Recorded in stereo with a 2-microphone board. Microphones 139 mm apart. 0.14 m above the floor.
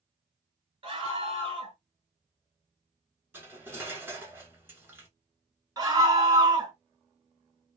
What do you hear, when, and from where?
0.8 s a scream: 40° right (ahead or behind), 1.4 m
3.3 s cutlery clinking: 15° right (ahead or behind), 1.1 m
5.8 s a scream: 25° right (ahead or behind), 1.4 m